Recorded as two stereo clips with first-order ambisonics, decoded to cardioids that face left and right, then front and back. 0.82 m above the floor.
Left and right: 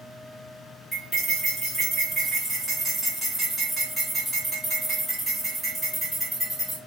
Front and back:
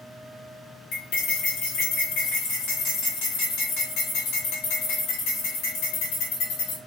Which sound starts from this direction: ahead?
Cutlery clinking, at 0.9 s.